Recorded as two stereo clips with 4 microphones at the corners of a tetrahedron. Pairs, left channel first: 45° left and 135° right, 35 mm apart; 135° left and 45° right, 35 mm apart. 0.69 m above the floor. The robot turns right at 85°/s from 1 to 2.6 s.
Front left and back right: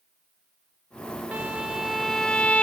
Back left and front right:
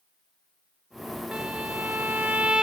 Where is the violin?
100° right, 0.6 m; by 2.6 s 10° left, 0.6 m.